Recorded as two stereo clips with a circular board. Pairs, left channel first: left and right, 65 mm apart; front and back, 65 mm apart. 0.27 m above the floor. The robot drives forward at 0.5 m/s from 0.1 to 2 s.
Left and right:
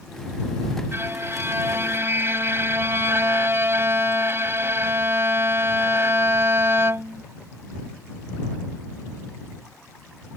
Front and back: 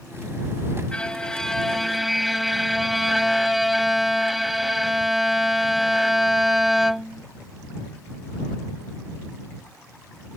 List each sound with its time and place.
0.9 s a violin: 70° right; by 7.2 s 95° right